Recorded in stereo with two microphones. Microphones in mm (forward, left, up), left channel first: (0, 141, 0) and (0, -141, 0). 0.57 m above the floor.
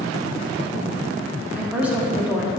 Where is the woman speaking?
5° right (ahead or behind), 0.9 m.